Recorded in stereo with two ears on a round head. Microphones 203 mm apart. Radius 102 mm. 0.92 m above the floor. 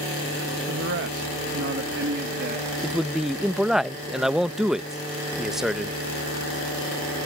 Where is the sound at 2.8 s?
Centre (ahead or behind).